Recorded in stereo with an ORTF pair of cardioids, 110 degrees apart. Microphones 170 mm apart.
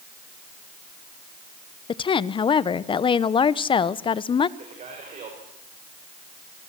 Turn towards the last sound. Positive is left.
turn(degrees=-45)